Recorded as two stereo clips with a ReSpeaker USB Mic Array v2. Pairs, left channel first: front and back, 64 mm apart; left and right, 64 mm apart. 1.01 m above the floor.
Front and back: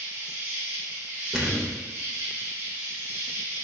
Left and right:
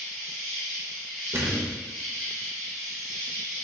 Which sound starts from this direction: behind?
An insect, at 0.0 s.